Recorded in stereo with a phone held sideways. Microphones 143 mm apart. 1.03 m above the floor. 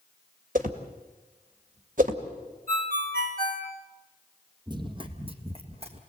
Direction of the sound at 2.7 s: 80° right.